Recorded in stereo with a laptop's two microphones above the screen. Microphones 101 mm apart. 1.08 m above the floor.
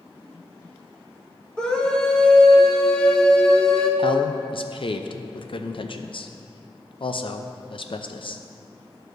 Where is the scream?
10° left (ahead or behind), 1.3 m.